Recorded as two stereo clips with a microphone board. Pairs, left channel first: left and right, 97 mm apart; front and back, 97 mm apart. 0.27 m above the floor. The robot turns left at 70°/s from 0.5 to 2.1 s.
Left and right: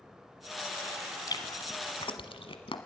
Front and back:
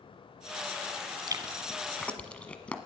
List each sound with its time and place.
1.3 s chewing: 135° left, 1.3 m; by 2.8 s 75° left, 1.3 m